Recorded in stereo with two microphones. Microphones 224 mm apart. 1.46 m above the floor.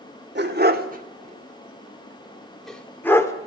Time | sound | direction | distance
0.3 | a dog barking | 50° right (ahead or behind) | 1.9 m